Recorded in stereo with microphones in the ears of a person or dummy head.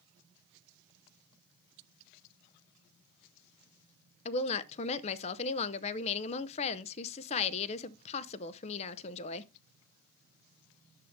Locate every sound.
4.2 s a woman speaking: 35° left (ahead or behind), 0.7 m